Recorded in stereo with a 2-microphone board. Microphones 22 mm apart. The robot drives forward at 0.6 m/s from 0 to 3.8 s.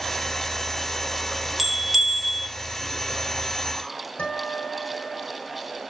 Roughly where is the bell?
Centre.